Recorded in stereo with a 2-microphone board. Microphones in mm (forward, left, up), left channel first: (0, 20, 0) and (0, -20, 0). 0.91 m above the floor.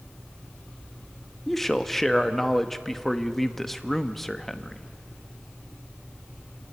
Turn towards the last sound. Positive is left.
turn(degrees=10)  # may be behind; listen again after turning